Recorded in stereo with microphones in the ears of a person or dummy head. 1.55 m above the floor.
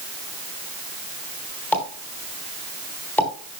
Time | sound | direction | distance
1.7 | a pop | 15° left (ahead or behind) | 3.5 m